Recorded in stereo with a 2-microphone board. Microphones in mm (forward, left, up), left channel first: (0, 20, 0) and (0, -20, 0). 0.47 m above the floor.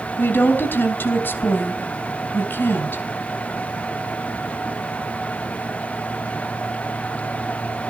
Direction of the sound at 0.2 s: 65° left (ahead or behind).